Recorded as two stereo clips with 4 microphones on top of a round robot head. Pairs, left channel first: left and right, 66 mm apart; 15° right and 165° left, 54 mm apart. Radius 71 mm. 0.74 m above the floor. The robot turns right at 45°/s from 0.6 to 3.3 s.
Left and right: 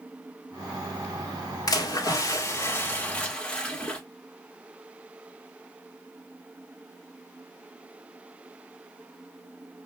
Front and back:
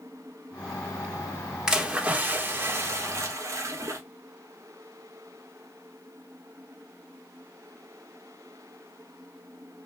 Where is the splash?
90° left, 1.7 m; by 4.0 s 165° left, 1.7 m.